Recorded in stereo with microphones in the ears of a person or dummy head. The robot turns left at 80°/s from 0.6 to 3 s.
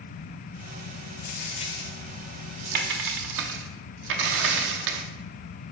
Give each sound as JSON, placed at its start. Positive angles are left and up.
{"t": 1.2, "sound": "a dropped coin", "side_deg": 55, "distance_m": 0.9}